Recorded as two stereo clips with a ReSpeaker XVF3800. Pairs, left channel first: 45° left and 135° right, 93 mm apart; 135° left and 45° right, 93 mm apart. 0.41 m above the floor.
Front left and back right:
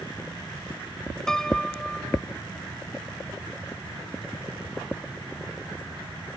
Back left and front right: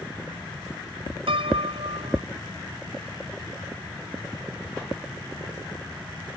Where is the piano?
40° right.